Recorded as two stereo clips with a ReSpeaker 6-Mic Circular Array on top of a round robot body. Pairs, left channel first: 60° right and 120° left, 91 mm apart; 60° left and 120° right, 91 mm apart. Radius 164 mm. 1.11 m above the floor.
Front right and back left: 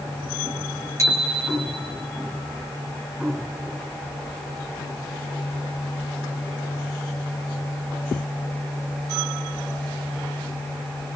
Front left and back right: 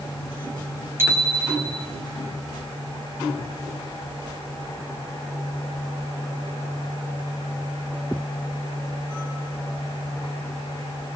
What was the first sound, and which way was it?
A bicycle bell, 175° left.